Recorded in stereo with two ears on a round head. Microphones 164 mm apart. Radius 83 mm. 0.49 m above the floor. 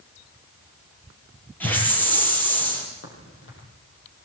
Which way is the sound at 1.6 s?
10° left (ahead or behind).